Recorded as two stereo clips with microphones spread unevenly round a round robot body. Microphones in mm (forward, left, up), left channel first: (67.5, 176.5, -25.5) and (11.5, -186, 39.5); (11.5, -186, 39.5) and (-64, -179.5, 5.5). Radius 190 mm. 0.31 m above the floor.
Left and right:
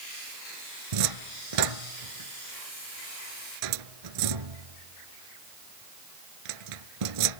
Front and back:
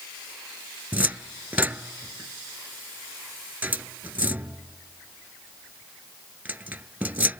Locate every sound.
0.9 s a cupboard door: 110° right